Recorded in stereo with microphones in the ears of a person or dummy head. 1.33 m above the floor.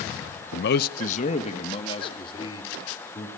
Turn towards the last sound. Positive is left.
turn(degrees=25)  # may be behind; listen again after turning